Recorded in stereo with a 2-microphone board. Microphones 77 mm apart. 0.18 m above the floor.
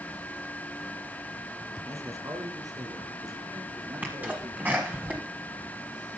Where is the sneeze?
20° right (ahead or behind), 1.4 m.